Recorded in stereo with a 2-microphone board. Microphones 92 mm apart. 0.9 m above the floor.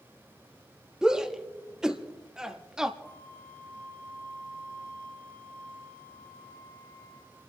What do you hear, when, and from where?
1.0 s a shout: 5° right (ahead or behind), 1.4 m
3.0 s a flute: 25° left (ahead or behind), 5 m